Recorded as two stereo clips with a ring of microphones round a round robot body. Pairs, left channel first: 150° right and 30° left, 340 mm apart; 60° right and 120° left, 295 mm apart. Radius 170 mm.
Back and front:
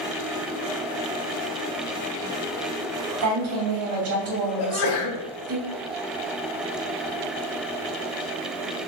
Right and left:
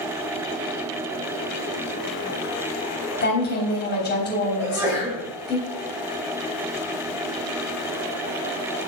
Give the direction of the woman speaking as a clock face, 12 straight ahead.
12 o'clock.